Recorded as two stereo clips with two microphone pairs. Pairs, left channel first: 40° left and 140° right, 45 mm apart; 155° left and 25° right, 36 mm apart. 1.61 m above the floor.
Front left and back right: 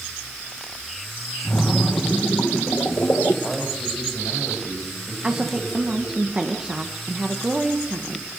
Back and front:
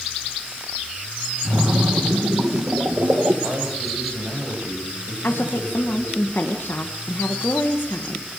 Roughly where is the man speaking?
Ahead right.